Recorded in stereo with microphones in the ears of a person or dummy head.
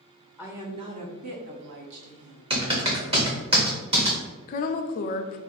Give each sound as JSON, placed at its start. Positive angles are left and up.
{"t": 0.4, "sound": "a woman speaking", "side_deg": -10, "distance_m": 0.7}
{"t": 2.5, "sound": "typing on a keyboard", "side_deg": -25, "distance_m": 1.0}
{"t": 4.5, "sound": "a woman speaking", "side_deg": 45, "distance_m": 0.6}